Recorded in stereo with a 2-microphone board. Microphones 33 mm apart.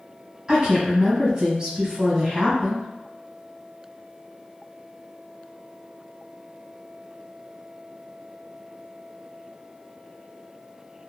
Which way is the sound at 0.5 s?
25° right (ahead or behind).